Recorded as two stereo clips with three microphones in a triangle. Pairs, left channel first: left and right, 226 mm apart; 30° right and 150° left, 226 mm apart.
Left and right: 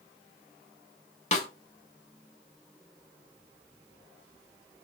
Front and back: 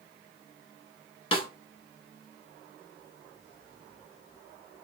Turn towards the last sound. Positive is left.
turn(degrees=30)